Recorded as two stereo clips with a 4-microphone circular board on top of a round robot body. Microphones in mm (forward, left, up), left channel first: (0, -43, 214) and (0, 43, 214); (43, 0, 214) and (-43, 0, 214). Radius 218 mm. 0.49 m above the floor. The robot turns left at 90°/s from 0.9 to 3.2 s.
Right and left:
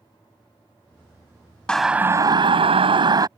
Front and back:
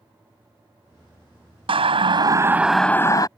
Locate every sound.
1.7 s a siren: 170° right; by 3.3 s 45° left